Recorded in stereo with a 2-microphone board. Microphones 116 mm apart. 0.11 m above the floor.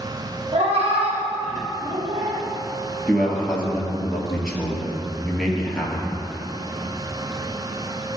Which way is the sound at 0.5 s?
55° right (ahead or behind).